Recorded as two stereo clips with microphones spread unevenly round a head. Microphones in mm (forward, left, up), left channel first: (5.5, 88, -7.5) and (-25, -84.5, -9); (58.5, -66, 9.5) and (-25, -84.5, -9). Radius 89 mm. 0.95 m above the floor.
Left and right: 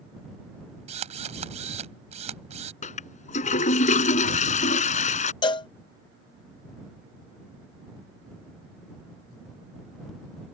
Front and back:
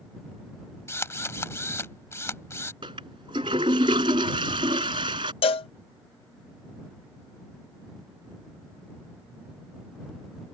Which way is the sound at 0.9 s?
45° right.